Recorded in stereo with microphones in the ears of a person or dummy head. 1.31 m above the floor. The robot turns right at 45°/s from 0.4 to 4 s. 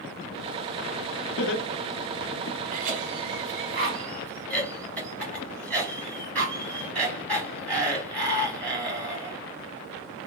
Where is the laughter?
55° left (ahead or behind), 0.8 m; by 2.6 s 60° left (ahead or behind), 0.8 m.